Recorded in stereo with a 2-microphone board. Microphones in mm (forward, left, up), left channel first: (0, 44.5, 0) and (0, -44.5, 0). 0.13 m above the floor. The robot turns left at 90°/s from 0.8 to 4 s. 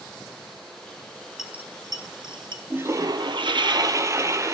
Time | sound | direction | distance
1.4 | a dropped coin | 5° right (ahead or behind) | 1.2 m
2.7 | a toilet flushing | 20° right | 0.7 m